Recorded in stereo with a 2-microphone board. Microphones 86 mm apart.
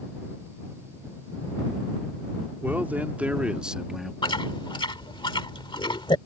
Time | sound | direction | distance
2.6 | a man speaking | 20° right (ahead or behind) | ?
4.2 | chewing | 75° left (ahead or behind) | ?